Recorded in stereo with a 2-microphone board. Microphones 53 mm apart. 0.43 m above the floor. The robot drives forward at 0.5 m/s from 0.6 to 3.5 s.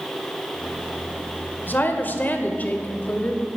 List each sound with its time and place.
1.7 s a woman speaking: 40° left (ahead or behind), 1.3 m; by 3.5 s 30° left (ahead or behind), 1.8 m